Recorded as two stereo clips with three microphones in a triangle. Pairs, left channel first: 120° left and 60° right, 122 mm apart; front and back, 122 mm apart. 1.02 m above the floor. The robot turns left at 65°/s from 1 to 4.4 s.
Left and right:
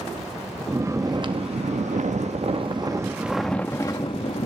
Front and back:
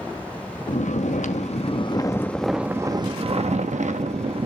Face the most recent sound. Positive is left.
turn(degrees=145)